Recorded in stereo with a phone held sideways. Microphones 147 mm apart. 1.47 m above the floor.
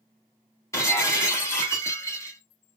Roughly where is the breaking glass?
Centre.